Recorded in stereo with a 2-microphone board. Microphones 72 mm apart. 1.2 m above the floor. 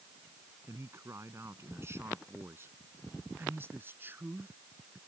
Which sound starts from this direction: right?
A man speaking, at 0.7 s.